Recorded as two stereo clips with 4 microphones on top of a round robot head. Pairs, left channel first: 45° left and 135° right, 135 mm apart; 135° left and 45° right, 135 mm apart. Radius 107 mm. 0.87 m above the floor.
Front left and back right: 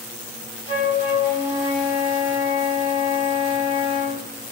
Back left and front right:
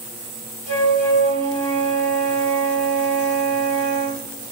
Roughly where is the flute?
Ahead.